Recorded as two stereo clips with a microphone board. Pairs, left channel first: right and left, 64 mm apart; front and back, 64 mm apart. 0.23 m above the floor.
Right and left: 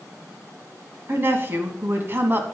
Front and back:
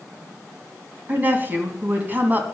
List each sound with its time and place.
1.1 s a woman speaking: 130° left, 1.9 m